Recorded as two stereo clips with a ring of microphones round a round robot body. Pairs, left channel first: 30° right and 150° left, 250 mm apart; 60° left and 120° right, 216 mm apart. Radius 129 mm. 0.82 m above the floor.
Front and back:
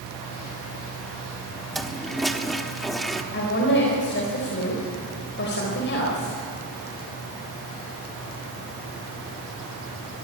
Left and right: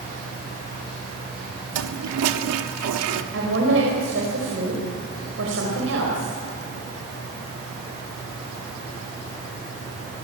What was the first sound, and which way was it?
A toilet flushing, 120° right.